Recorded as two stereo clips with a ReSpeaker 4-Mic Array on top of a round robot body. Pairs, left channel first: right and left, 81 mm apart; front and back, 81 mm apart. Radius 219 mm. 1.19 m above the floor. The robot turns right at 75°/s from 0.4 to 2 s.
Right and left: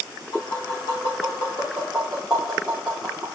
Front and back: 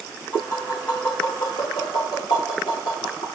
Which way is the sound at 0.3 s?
120° right.